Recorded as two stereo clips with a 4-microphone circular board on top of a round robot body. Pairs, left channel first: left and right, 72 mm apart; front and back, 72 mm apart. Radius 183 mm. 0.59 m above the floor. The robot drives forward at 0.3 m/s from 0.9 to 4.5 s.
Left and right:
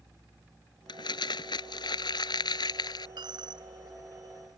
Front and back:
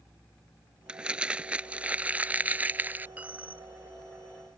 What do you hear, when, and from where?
0.9 s crumpling: 105° left; by 3.1 s 115° left
3.2 s a dropped coin: 110° right; by 4.6 s 115° right